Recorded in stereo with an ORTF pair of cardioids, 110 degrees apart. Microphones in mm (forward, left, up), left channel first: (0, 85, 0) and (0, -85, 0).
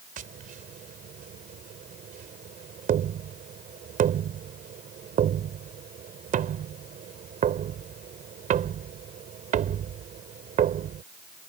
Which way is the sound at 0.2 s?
55° right.